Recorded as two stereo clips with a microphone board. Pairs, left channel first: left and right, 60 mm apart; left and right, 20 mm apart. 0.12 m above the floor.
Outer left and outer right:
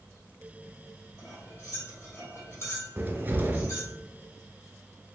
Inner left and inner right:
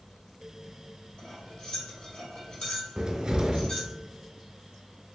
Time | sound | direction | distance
1.2 | cutlery clinking | 50° left (ahead or behind) | 2 m
3.0 | a cupboard door | 30° right (ahead or behind) | 0.5 m